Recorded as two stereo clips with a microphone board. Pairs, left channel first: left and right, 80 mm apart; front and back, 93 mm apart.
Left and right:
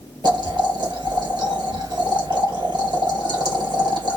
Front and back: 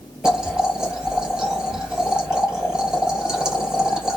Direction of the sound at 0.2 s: 100° right.